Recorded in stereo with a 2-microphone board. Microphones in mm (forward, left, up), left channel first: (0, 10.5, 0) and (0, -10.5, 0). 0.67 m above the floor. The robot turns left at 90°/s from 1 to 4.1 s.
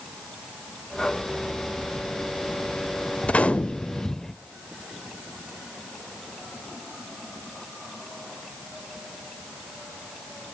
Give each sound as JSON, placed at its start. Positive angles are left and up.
{"t": 3.2, "sound": "a gunshot", "azimuth_deg": 105, "distance_m": 0.6}